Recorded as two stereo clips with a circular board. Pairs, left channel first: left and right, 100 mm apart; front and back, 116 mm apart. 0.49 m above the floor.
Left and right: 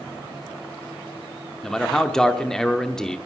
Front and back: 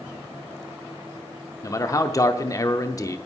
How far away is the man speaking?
About 0.8 m.